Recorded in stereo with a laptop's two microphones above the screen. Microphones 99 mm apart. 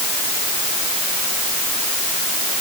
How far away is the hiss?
No hiss in this recording.